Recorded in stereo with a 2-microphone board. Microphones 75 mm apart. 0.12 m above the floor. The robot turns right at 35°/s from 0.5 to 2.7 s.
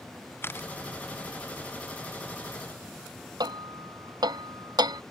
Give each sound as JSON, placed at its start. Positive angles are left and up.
{"t": 0.4, "sound": "a camera shutter", "side_deg": 30}
{"t": 3.4, "sound": "hammering", "side_deg": -65}